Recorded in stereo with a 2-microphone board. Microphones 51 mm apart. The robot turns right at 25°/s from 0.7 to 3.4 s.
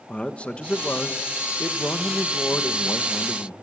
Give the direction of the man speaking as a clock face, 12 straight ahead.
11 o'clock.